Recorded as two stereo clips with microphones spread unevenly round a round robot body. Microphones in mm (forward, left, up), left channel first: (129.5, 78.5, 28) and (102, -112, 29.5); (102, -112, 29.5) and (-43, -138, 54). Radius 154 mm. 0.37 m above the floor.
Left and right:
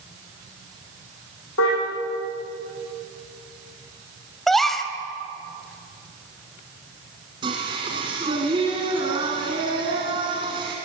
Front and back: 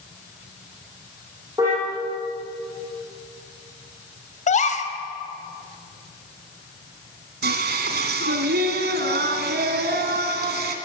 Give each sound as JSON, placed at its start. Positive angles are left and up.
{"t": 1.6, "sound": "a car horn", "azimuth_deg": 110, "distance_m": 7.0}
{"t": 4.5, "sound": "a gasp", "azimuth_deg": -5, "distance_m": 2.0}
{"t": 7.4, "sound": "singing", "azimuth_deg": -170, "distance_m": 1.7}